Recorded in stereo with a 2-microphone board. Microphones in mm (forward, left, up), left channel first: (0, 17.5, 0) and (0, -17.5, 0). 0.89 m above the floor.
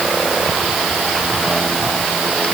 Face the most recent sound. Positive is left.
No sound to turn to.